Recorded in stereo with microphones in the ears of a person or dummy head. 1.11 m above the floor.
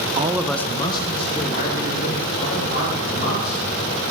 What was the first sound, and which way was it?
A man speaking, 30° right (ahead or behind).